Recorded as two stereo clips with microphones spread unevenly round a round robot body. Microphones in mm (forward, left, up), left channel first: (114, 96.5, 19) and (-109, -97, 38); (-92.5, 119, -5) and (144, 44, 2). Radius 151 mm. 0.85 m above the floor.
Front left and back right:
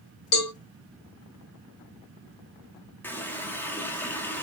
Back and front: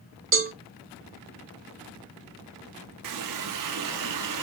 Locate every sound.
0.3 s a cowbell: 15° left, 1.6 m
3.0 s a running tap: 45° right, 0.7 m